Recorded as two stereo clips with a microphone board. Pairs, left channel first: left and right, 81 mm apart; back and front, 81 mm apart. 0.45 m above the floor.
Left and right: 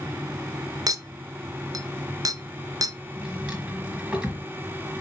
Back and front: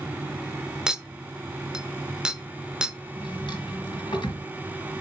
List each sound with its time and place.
0.9 s a clink: 80° right, 0.6 m
3.2 s a drawer: 165° right, 4 m